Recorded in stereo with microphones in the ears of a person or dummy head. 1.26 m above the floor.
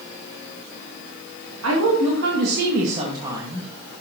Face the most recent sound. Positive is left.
turn(degrees=0)  # may be behind; listen again after turning